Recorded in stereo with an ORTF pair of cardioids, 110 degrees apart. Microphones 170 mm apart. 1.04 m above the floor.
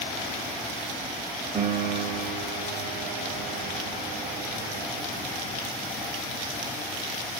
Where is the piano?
30° right, 3 m.